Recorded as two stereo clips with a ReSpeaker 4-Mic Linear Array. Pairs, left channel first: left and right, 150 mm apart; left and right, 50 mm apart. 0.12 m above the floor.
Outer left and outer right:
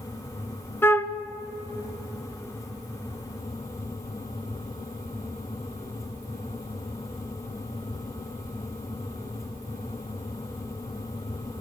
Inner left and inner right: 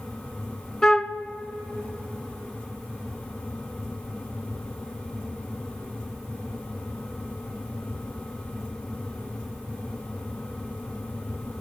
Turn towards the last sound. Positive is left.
turn(degrees=15)  # may be behind; listen again after turning